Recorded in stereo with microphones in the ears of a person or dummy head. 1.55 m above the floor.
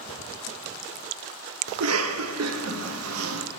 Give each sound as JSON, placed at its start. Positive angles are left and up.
{"t": 1.7, "sound": "a cough", "side_deg": -80, "distance_m": 0.7}